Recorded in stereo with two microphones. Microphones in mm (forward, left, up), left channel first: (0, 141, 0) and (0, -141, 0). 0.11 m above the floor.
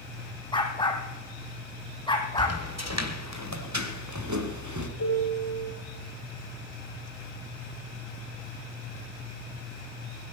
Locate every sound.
0.5 s a dog barking: 15° left (ahead or behind), 3 m
2.4 s footsteps: 60° right (ahead or behind), 2.5 m; by 4.9 s 90° right, 2.5 m
5.0 s a piano: 80° left, 8.5 m